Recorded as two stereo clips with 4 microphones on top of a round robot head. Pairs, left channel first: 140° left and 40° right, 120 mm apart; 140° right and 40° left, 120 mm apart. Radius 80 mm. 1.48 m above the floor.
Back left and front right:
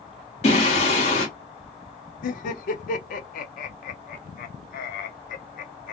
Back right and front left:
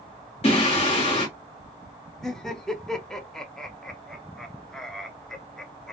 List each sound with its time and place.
0.4 s singing: straight behind, 1.2 m
2.2 s laughter: 135° left, 0.6 m